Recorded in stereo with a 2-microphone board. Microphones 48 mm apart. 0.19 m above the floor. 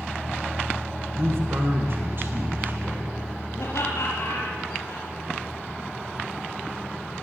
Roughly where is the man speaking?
Right.